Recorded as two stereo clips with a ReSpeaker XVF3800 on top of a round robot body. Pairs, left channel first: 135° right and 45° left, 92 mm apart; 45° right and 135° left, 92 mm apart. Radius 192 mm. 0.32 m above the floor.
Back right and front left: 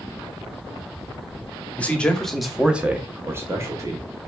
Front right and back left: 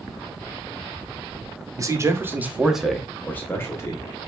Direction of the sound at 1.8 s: 160° left.